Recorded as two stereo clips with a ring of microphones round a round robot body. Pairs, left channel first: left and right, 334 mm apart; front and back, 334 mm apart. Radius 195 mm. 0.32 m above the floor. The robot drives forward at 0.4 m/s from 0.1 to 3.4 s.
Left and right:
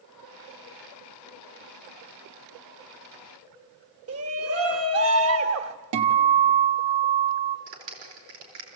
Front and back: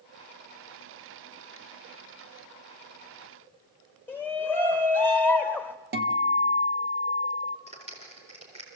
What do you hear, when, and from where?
4.1 s a shout: 80° right, 1.2 m
5.9 s a guitar: 120° right, 1.4 m
7.7 s a clap: 105° right, 5.5 m